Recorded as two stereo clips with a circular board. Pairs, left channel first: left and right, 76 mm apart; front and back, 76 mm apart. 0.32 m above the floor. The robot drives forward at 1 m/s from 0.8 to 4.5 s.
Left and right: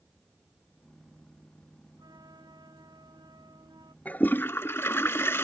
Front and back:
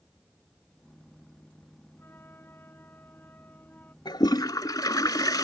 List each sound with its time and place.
2.0 s a flute: 60° right; by 4.0 s 65° right
4.0 s a toilet flushing: 20° left; by 5.4 s 35° left